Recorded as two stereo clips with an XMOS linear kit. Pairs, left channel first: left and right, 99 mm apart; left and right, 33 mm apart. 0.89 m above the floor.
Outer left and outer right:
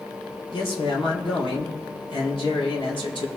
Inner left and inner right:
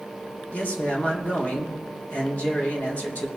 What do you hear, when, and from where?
0.5 s a man speaking: 60° left (ahead or behind), 3 m